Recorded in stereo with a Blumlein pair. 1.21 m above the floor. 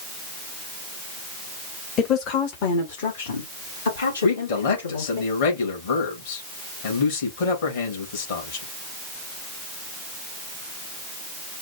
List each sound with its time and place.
2.0 s a woman speaking: 30° left, 1.0 m; by 5.2 s 75° left, 3 m
4.2 s a man speaking: 55° left, 2.5 m